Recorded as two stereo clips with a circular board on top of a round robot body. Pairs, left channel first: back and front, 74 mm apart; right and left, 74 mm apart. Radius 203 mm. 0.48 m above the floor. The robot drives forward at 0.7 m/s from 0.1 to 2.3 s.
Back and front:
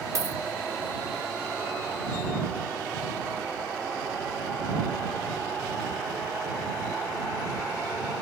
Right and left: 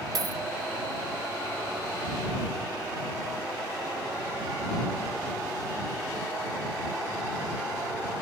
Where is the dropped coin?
50° left, 0.6 m; by 0.4 s 70° left, 0.5 m.